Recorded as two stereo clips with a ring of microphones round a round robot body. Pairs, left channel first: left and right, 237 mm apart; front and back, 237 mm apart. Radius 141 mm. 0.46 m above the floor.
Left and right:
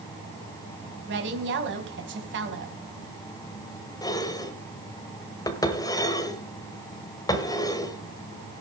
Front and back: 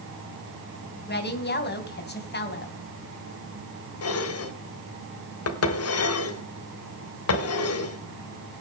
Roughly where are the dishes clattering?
Ahead.